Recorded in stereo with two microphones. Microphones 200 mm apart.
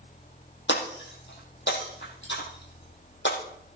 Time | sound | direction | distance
0.7 | breaking glass | 75° left (ahead or behind) | 5.5 m